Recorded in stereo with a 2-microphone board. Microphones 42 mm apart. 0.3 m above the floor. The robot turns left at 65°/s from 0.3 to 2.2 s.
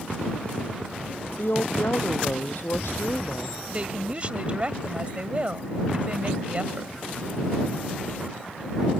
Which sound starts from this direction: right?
A woman speaking, at 3.7 s.